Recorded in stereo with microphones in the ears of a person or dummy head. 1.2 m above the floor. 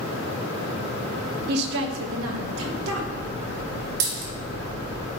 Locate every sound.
1.5 s a woman speaking: 55° right (ahead or behind), 0.7 m; by 3.1 s 80° right, 2 m
4.0 s a dropped coin: 80° right, 2.5 m